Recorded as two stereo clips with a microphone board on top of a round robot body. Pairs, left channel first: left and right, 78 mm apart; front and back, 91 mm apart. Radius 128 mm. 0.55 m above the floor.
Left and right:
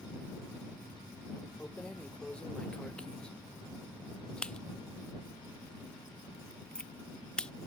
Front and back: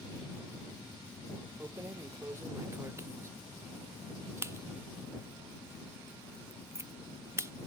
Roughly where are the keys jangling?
Behind left.